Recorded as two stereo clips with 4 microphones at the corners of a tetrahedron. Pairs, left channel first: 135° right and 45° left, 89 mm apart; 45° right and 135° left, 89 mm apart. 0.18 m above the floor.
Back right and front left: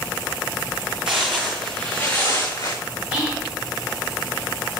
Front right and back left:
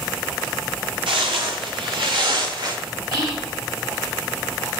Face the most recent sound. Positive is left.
turn(degrees=120)